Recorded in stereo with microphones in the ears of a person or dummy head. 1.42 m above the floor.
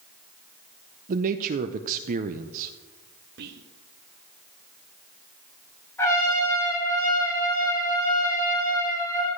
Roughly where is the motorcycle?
I don't hear a motorcycle.